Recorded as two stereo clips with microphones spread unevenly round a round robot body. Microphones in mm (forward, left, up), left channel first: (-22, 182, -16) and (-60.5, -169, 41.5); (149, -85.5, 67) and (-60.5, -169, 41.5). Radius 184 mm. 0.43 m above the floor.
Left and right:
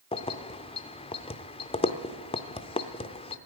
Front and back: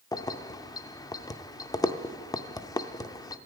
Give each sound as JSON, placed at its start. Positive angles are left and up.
{"t": 0.1, "sound": "keys jangling", "azimuth_deg": 90, "distance_m": 0.5}